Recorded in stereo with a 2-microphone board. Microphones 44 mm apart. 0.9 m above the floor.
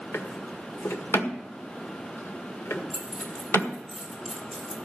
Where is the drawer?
85° left, 1.5 m.